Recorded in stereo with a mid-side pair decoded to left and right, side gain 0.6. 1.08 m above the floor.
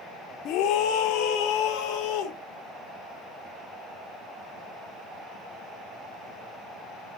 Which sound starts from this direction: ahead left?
A scream, at 0.5 s.